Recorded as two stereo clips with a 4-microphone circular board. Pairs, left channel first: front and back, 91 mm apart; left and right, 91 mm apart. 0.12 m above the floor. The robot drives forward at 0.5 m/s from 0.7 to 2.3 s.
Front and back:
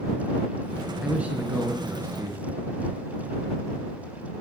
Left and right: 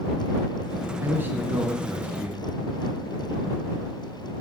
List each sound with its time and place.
1.0 s a man speaking: 115° right, 1.2 m; by 2.5 s 150° right, 1.4 m